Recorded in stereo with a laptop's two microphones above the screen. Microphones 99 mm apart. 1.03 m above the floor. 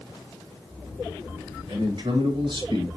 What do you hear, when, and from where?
1.7 s a man speaking: 55° right (ahead or behind), 1.7 m